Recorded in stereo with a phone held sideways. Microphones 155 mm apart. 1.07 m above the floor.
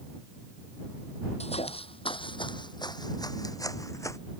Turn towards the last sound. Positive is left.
turn(degrees=20)  # may be behind; listen again after turning